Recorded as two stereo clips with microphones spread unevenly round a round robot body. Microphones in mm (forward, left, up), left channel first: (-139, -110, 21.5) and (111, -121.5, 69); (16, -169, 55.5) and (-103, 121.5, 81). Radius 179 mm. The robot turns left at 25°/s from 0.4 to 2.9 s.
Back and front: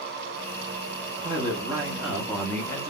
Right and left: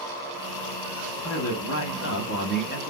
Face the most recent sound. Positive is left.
turn(degrees=-120)